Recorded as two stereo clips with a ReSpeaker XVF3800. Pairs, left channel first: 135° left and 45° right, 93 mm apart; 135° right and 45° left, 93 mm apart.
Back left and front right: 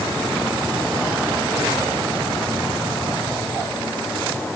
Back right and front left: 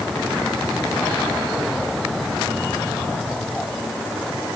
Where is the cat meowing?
I don't hear a cat meowing.